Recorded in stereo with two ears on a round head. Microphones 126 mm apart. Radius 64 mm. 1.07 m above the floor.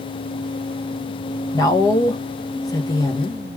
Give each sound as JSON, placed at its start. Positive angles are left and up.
{"t": 1.5, "sound": "a woman speaking", "side_deg": 25, "distance_m": 0.5}